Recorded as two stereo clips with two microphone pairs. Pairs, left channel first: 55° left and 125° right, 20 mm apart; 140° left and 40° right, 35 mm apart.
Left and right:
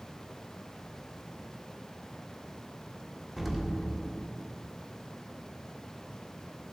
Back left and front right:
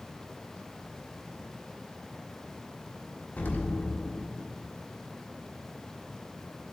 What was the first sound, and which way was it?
An explosion, 155° left.